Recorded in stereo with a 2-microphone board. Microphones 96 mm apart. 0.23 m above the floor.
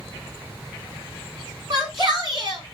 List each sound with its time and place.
1.7 s a shout: 55° right (ahead or behind), 1.8 m